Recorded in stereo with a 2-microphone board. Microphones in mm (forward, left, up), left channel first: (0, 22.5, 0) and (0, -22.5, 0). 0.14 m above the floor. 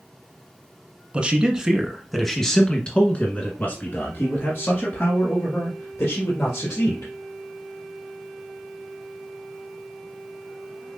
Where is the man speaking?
25° right (ahead or behind), 1.2 m; by 7.1 s 70° left (ahead or behind), 2.5 m.